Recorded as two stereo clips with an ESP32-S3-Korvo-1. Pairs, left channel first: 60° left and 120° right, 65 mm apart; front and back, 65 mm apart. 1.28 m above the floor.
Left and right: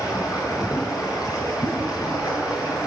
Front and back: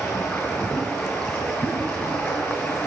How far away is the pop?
About 3.5 m.